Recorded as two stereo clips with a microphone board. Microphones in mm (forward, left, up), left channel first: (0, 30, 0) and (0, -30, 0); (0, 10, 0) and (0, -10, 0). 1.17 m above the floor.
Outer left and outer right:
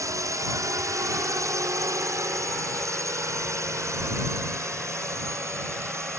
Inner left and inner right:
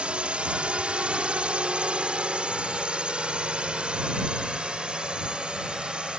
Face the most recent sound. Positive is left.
turn(degrees=-50)  # may be behind; listen again after turning